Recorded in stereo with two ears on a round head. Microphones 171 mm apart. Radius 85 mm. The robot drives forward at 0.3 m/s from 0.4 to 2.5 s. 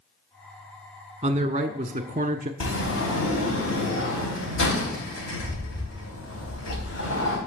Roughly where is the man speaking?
Right.